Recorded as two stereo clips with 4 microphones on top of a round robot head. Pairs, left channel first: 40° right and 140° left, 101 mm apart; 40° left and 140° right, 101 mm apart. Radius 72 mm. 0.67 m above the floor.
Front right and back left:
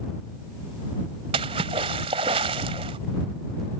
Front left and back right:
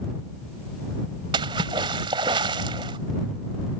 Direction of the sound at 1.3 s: 175° left.